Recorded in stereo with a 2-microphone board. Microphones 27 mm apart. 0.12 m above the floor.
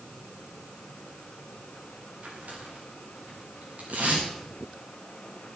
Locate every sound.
2.2 s tearing paper: 85° right, 7 m